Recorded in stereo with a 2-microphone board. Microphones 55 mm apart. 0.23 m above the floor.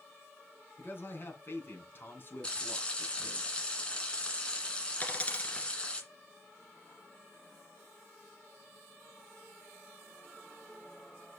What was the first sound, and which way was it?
A man speaking, 40° left (ahead or behind).